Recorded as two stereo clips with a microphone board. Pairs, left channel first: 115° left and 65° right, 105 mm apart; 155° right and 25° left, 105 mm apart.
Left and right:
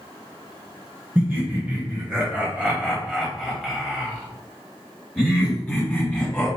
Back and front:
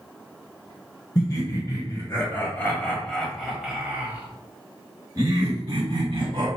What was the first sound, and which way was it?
Laughter, 130° right.